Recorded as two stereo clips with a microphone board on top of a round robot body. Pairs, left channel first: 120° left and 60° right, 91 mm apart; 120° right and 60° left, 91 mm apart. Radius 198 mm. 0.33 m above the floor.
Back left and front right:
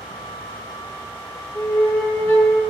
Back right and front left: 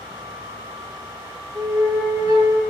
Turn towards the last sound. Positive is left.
turn(degrees=70)